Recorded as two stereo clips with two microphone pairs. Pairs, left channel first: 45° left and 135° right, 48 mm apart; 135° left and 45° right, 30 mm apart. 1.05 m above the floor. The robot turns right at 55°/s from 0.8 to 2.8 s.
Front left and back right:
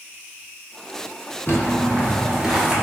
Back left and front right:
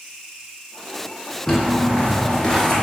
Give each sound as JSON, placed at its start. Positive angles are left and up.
{"t": 1.5, "sound": "footsteps", "azimuth_deg": 60, "distance_m": 1.2}